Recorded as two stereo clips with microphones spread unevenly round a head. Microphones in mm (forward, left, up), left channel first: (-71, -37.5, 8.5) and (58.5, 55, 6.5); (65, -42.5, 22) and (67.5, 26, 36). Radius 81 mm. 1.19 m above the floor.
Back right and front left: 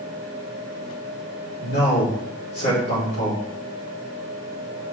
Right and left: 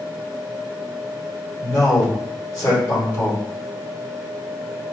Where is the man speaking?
155° right, 2.5 m.